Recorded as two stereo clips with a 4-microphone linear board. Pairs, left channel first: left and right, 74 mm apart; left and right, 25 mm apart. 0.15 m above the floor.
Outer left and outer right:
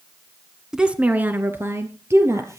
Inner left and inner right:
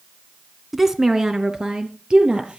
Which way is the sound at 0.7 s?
10° right (ahead or behind).